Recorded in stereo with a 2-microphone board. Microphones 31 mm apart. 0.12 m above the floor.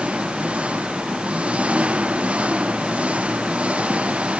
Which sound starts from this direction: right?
An engine running, at 0.0 s.